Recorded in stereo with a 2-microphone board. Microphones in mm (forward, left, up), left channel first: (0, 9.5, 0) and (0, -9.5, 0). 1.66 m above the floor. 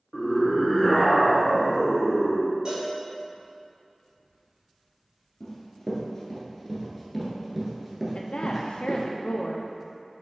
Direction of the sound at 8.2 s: 75° left (ahead or behind).